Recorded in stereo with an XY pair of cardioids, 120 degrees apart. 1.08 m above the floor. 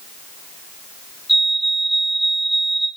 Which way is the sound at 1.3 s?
10° left.